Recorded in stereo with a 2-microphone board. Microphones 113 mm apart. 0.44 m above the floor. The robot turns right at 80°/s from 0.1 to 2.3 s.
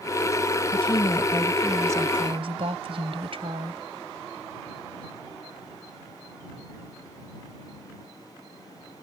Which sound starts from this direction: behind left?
A woman speaking, at 0.7 s.